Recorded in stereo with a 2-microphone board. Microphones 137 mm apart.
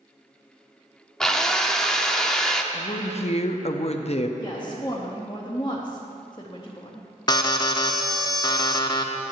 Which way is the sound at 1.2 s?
5° left (ahead or behind).